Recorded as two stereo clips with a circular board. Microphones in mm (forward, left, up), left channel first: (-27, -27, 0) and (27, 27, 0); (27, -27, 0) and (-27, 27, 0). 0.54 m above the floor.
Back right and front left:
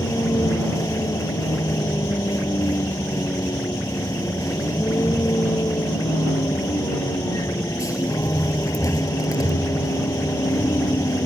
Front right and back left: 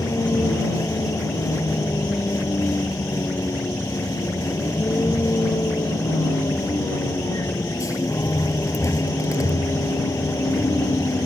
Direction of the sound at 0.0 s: 90° right.